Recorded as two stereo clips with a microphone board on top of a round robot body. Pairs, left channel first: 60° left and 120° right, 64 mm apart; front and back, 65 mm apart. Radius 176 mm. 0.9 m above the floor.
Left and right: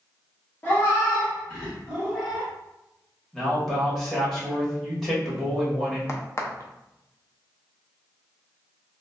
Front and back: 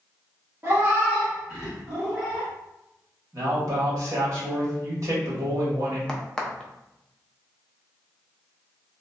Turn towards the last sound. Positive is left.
turn(degrees=75)